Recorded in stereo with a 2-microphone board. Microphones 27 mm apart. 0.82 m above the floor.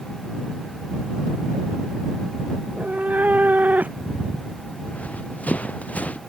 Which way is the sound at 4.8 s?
60° left (ahead or behind).